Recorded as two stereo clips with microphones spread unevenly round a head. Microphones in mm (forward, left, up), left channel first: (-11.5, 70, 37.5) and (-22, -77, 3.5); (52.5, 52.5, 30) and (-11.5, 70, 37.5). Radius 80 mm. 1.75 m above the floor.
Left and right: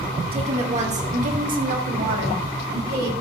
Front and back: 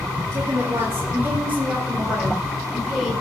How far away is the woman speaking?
About 3 m.